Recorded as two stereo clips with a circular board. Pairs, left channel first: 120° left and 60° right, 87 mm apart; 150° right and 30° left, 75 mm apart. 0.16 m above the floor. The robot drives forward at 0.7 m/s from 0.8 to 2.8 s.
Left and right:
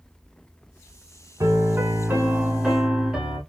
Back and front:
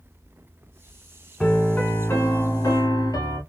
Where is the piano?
70° right, 0.9 m; by 3.4 s 140° right, 1.2 m.